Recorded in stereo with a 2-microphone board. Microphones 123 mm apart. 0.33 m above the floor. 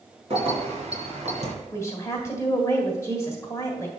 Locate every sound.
0.3 s keys jangling: 50° right (ahead or behind), 2.5 m; by 1.5 s 65° right (ahead or behind), 2.5 m
1.7 s a woman speaking: 25° left (ahead or behind), 1.5 m